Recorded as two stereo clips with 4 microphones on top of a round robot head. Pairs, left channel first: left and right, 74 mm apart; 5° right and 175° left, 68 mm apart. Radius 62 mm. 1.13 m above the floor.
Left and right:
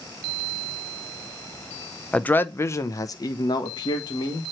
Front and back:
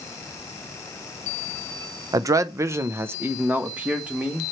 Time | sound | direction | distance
2.1 | a man speaking | 160° left | 0.7 m